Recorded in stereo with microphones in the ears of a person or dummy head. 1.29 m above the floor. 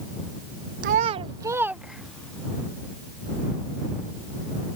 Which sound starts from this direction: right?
A child speaking, at 0.8 s.